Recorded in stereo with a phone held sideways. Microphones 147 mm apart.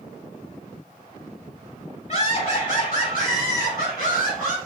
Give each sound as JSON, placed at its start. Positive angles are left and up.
{"t": 2.1, "sound": "laughter", "side_deg": 55, "distance_m": 2.5}